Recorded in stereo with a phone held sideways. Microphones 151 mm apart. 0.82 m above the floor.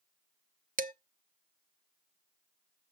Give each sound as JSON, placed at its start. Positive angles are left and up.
{"t": 0.8, "sound": "dishes clattering", "side_deg": -60, "distance_m": 0.7}